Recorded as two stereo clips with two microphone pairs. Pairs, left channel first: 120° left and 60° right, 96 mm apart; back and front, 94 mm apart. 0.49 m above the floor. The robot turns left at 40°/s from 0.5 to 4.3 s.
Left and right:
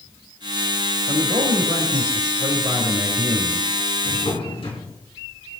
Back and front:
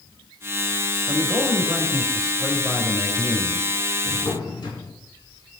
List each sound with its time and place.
1.1 s a man speaking: 40° right, 3 m; by 3.7 s 145° right, 3 m
4.0 s a drawer: 155° left, 3.5 m; by 5.0 s 145° left, 3.5 m